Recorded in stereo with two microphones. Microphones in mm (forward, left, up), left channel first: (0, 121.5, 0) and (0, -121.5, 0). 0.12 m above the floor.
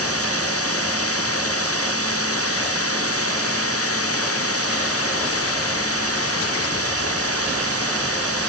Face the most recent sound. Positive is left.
turn(degrees=70)  # may be behind; listen again after turning